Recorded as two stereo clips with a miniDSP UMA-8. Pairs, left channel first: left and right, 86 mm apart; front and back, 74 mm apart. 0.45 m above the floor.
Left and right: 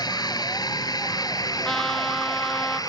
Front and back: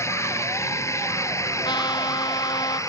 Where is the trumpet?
5° left.